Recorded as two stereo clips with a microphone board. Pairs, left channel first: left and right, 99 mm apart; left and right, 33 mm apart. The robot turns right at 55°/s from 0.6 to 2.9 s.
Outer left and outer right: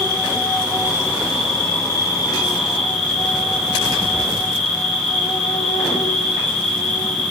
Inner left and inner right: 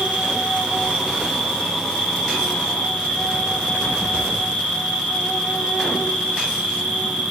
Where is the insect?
50° right, 3.5 m; by 7.3 s 75° left, 3.5 m.